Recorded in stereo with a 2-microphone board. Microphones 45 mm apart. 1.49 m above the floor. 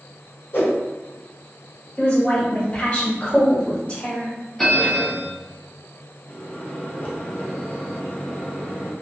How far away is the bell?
About 0.9 m.